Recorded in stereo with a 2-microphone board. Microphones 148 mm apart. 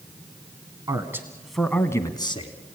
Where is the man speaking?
25° right (ahead or behind), 1.3 m; by 2.5 s 40° left (ahead or behind), 1.3 m.